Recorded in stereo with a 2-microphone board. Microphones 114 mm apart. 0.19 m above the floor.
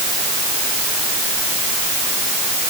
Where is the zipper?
No zipper in this recording.